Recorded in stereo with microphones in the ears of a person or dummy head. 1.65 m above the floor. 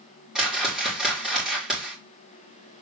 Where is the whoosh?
Centre (ahead or behind), 3 m.